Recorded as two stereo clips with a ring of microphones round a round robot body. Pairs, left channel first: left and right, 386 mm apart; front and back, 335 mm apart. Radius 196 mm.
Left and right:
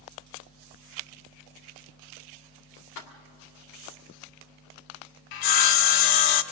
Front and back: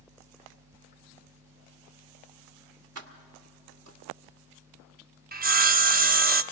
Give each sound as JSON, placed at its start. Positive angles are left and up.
{"t": 3.0, "sound": "keys jangling", "azimuth_deg": 135, "distance_m": 1.6}
{"t": 5.3, "sound": "sawing", "azimuth_deg": 115, "distance_m": 0.8}